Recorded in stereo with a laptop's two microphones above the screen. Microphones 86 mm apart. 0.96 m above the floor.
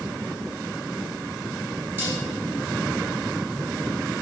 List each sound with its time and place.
2.0 s dishes clattering: 25° right (ahead or behind), 6 m